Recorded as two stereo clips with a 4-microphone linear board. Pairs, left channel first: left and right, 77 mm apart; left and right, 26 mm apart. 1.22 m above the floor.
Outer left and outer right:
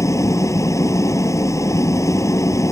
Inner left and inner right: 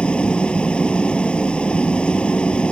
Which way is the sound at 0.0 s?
40° left (ahead or behind).